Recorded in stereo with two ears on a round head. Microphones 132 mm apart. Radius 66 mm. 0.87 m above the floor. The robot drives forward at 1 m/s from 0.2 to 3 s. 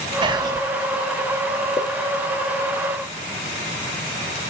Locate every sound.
0.2 s whispering: 30° right (ahead or behind), 0.9 m; by 0.6 s 25° right (ahead or behind), 1.1 m
1.8 s a pop: 30° left (ahead or behind), 1.1 m; by 1.9 s 25° left (ahead or behind), 1.2 m